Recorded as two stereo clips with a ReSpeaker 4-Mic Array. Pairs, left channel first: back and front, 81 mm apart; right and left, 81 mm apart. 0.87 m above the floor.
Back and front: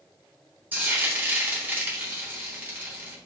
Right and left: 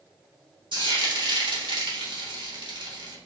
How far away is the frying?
About 1.2 m.